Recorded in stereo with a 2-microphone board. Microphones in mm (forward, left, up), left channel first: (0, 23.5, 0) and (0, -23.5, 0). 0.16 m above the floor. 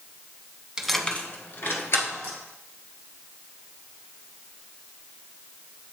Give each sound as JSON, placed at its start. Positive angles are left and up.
{"t": 0.8, "sound": "keys jangling", "side_deg": -15, "distance_m": 0.7}